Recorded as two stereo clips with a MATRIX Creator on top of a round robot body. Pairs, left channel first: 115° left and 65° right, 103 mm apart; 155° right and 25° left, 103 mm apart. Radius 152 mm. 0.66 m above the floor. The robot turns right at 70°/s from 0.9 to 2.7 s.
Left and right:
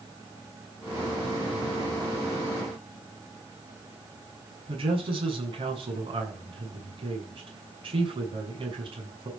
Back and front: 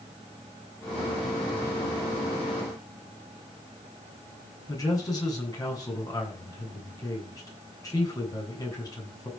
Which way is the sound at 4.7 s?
105° right.